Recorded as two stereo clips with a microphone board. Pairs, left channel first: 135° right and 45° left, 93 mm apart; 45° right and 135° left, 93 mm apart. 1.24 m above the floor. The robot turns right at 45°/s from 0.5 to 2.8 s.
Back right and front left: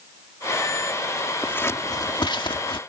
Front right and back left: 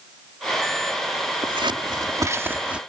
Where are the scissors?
155° left; by 2.8 s 145° right.